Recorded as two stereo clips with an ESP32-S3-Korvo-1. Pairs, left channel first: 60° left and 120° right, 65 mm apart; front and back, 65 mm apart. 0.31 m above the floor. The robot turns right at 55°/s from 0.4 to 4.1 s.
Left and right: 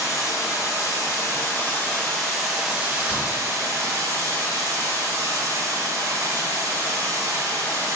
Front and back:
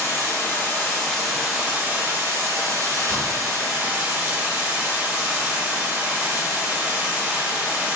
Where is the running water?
35° left, 1.8 m; by 8.0 s 120° right, 1.8 m.